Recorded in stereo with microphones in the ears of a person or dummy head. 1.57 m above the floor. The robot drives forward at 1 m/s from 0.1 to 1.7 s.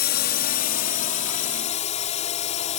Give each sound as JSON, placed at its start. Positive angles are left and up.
{"t": 0.0, "sound": "a drone", "side_deg": 45}